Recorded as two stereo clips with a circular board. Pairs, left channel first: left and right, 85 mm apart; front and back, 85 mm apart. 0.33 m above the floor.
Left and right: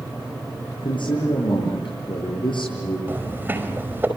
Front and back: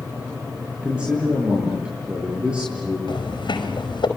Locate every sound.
0.8 s a man speaking: 100° left, 8 m
3.1 s footsteps: 25° right, 5.5 m